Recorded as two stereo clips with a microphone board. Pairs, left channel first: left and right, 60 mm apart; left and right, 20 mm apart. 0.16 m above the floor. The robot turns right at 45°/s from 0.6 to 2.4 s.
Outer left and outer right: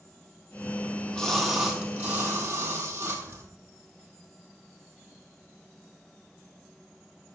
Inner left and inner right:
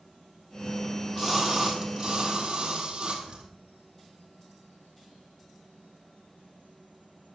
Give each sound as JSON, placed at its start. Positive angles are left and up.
{"t": 0.8, "sound": "a splash", "azimuth_deg": 155, "distance_m": 3.5}